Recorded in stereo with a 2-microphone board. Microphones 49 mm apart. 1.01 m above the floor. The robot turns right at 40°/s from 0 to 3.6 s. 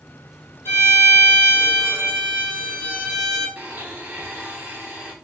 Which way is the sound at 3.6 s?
30° right (ahead or behind).